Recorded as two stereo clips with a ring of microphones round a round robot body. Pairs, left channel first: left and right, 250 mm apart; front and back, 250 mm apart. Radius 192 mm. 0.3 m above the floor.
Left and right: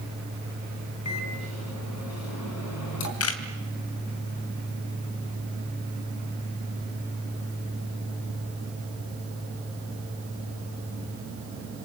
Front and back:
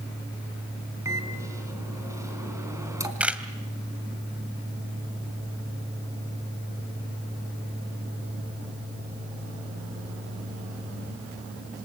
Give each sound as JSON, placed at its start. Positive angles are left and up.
{"t": 1.1, "sound": "a microwave", "azimuth_deg": 100, "distance_m": 4.0}
{"t": 3.2, "sound": "a camera shutter", "azimuth_deg": 95, "distance_m": 2.5}